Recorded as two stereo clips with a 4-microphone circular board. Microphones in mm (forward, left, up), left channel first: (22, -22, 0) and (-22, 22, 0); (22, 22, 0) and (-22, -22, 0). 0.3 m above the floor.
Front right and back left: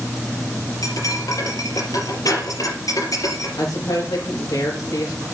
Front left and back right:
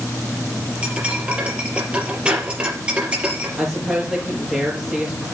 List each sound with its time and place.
0.8 s cutlery clinking: 60° right, 4.5 m
3.6 s a woman speaking: 60° right, 4.5 m